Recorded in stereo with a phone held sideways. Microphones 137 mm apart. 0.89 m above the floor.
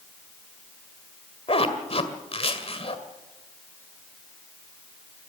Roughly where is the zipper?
Left.